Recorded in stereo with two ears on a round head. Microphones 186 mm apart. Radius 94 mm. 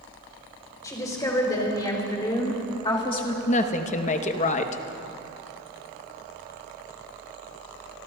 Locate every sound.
0.8 s a woman speaking: 15° left (ahead or behind), 4 m; by 3.4 s 25° left (ahead or behind), 1.6 m
3.5 s a woman speaking: 35° left (ahead or behind), 0.9 m